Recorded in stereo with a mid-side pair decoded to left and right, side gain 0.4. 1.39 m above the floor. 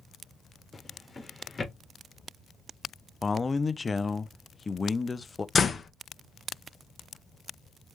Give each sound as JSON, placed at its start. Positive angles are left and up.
{"t": 0.7, "sound": "a drawer", "azimuth_deg": 25, "distance_m": 1.5}
{"t": 3.2, "sound": "a man speaking", "azimuth_deg": 30, "distance_m": 0.6}
{"t": 5.5, "sound": "a door slam", "azimuth_deg": 40, "distance_m": 0.7}